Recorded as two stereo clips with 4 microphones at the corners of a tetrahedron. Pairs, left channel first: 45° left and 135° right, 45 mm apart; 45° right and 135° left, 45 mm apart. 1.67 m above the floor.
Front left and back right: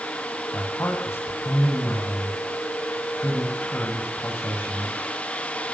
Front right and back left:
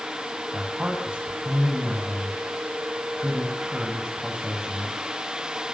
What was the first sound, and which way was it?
A man speaking, 65° left.